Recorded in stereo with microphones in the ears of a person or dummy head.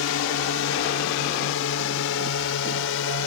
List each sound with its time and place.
0.0 s a drone: 70° left (ahead or behind)